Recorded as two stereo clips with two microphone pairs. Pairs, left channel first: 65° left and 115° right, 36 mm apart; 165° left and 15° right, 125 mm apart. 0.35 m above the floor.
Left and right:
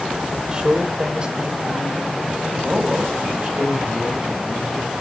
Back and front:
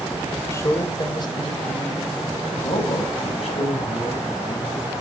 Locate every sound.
0.5 s a man speaking: 155° right, 1.5 m; by 4.9 s straight behind, 4 m